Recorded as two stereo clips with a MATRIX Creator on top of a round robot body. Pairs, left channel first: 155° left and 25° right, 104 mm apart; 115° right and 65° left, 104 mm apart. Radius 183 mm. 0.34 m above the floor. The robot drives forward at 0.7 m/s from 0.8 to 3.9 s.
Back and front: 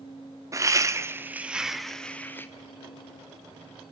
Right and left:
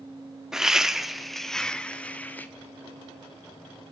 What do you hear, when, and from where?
0.5 s laughter: 15° right, 1.4 m; by 2.5 s 165° right, 1.4 m